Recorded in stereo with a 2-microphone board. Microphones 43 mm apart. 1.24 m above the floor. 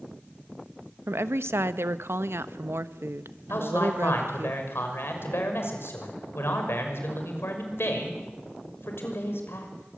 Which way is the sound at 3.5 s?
70° left (ahead or behind).